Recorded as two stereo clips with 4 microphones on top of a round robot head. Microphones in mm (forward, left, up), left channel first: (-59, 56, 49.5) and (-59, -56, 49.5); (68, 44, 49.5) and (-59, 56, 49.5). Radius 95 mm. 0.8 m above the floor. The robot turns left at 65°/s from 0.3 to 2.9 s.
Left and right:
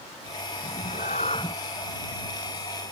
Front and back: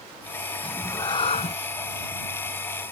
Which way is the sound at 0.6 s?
75° left.